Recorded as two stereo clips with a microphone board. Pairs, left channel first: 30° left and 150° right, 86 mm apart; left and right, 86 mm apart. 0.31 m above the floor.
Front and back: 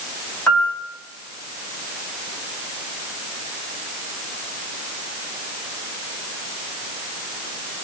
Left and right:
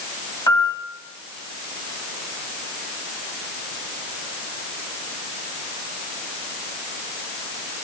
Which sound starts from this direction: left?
A piano, at 0.5 s.